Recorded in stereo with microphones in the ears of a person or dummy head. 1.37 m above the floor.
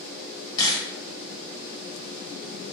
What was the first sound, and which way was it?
A camera shutter, 20° left (ahead or behind).